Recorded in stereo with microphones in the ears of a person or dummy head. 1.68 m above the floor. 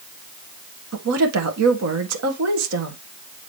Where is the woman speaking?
85° right, 1.7 m.